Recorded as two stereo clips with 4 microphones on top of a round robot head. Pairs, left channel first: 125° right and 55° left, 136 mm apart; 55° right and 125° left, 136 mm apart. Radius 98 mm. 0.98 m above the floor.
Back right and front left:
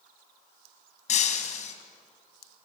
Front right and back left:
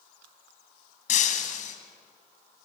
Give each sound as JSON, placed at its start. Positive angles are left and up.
{"t": 1.1, "sound": "breaking glass", "azimuth_deg": -90, "distance_m": 2.0}